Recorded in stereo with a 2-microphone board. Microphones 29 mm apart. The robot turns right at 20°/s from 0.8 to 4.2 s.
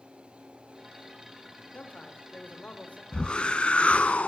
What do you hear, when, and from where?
1.7 s a man speaking: 55° left (ahead or behind), 1.5 m
3.1 s a whoosh: 30° left (ahead or behind), 0.7 m; by 4.3 s 50° left (ahead or behind), 0.7 m